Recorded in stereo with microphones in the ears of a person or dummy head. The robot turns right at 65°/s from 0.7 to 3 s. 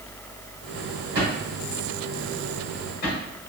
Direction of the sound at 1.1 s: 65° right (ahead or behind).